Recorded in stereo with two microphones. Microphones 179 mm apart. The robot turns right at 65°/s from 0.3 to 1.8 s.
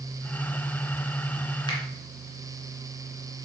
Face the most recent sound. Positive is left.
turn(degrees=30)  # may be behind; listen again after turning